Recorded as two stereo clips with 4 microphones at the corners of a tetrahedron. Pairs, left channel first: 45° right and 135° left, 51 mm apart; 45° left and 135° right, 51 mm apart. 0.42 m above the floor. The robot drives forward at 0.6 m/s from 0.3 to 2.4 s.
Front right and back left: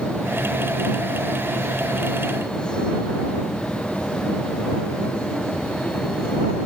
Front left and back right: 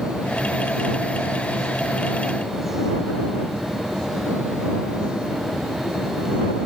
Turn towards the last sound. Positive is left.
No sound to turn to.